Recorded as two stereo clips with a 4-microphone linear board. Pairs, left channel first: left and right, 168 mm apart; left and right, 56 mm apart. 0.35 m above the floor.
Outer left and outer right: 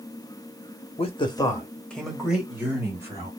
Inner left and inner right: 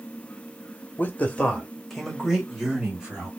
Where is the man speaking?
35° left (ahead or behind), 1.0 m; by 3.3 s 20° right (ahead or behind), 1.9 m.